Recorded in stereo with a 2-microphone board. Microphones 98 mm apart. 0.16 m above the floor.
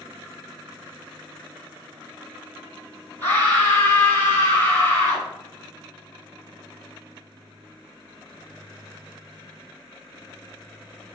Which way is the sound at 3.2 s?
25° left (ahead or behind).